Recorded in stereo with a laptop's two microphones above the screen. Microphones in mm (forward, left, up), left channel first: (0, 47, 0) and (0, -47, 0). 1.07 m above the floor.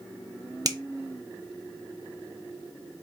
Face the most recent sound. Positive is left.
turn(degrees=-40)  # may be behind; listen again after turning